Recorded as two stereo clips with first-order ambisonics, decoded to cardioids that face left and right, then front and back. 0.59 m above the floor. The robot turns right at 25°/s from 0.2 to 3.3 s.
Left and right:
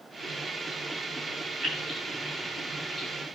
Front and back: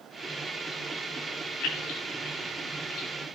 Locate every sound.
1.6 s keys jangling: 25° right, 3 m; by 3.1 s 15° left, 3 m